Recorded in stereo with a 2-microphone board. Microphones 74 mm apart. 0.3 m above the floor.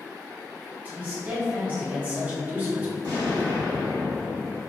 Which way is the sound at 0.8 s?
25° right (ahead or behind).